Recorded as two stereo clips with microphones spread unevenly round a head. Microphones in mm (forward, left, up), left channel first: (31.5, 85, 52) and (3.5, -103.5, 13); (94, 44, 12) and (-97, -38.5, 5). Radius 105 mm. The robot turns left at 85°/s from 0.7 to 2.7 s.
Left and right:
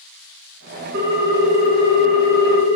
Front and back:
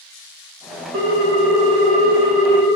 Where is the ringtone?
135° right, 1.1 m; by 2.7 s 75° left, 1.1 m.